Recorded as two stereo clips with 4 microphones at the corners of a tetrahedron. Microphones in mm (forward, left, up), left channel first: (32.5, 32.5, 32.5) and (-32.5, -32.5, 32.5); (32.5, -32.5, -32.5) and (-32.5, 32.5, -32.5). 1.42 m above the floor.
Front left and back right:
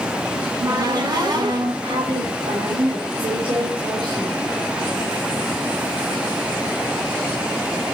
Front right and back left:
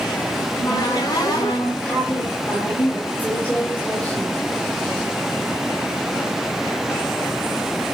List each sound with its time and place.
0.4 s a cupboard door: 95° right, 5 m
1.8 s a woman speaking: 120° right, 3.5 m